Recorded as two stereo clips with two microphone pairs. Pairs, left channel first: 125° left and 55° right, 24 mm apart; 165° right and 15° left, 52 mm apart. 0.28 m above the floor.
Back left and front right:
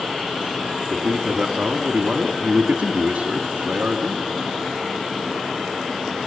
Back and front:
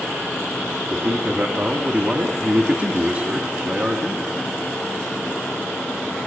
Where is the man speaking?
35° right, 2 m.